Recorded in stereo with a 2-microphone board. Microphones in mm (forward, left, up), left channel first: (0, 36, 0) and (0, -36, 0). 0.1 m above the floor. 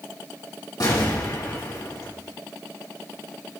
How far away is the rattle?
I don't hear a rattle.